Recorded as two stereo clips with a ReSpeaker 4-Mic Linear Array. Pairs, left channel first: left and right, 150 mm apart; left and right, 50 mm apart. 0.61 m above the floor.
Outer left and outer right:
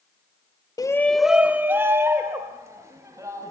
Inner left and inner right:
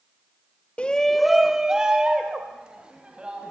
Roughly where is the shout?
Left.